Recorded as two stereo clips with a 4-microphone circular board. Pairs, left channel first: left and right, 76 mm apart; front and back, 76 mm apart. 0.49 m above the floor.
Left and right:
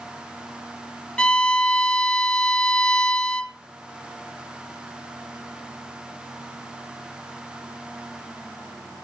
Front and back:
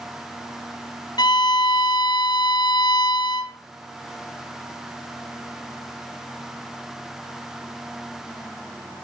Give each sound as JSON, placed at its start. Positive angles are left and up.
{"t": 1.2, "sound": "a violin", "azimuth_deg": 15, "distance_m": 0.7}